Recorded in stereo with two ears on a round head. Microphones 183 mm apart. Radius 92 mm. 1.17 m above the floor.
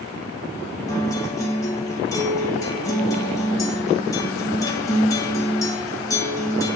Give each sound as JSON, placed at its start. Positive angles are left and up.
{"t": 0.9, "sound": "a guitar", "side_deg": 15, "distance_m": 1.2}